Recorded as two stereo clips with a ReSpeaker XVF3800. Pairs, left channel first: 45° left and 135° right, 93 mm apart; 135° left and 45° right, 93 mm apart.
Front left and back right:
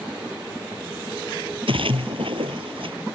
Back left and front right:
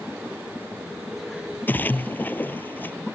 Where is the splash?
155° right.